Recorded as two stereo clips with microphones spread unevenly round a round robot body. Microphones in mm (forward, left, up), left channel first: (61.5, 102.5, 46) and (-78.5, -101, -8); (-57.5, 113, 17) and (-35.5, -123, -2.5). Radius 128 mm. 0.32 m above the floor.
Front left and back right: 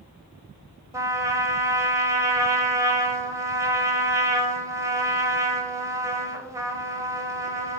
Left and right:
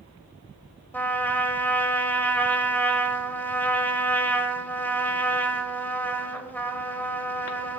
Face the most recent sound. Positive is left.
turn(degrees=180)